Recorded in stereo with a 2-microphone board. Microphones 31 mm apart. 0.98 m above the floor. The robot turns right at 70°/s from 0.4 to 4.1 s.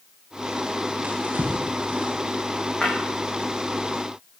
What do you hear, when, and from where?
1.0 s a drawer: 60° right (ahead or behind), 8 m; by 2.1 s 50° right (ahead or behind), 8 m
2.8 s breaking glass: 30° left (ahead or behind), 9.5 m; by 2.9 s 40° left (ahead or behind), 9.5 m